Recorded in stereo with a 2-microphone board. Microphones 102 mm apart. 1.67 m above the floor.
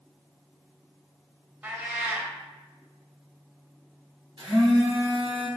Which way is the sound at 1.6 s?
20° right (ahead or behind).